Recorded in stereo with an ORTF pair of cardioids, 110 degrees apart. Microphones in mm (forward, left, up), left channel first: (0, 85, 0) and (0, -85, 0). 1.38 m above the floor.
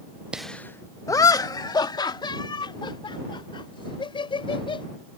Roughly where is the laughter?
Ahead.